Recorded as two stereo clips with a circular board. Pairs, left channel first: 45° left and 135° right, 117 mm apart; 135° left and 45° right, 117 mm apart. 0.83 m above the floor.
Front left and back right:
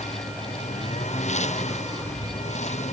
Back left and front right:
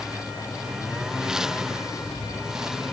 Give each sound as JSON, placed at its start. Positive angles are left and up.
{"t": 0.0, "sound": "a lawn mower", "azimuth_deg": 40}